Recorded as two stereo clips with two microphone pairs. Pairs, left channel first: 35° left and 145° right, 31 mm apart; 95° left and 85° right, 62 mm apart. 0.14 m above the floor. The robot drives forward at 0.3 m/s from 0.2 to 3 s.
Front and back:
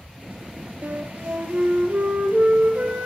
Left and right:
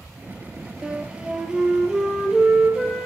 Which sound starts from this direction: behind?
A flute, at 0.8 s.